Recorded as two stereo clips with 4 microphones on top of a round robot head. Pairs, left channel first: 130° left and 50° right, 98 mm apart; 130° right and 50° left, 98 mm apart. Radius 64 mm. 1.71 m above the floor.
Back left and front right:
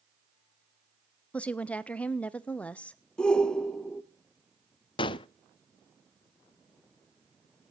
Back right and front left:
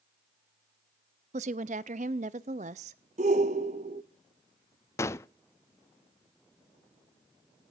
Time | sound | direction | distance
1.3 | a woman speaking | 50° left | 0.7 m
3.2 | a shout | 50° left | 0.8 m
5.0 | a gunshot | 170° left | 0.5 m